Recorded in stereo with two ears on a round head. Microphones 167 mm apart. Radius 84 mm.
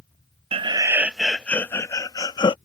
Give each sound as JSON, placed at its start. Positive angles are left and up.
{"t": 0.5, "sound": "laughter", "side_deg": -30}